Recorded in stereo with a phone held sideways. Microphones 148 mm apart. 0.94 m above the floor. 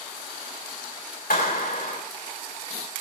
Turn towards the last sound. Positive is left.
turn(degrees=80)